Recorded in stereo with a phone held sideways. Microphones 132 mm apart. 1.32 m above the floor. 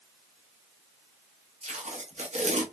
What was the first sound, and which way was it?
Tape being pulled, 60° right (ahead or behind).